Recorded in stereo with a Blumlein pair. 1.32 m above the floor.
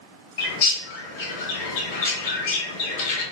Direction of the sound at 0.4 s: 50° left.